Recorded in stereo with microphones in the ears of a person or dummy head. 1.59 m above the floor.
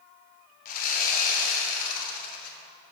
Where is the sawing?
45° left (ahead or behind), 1.0 m.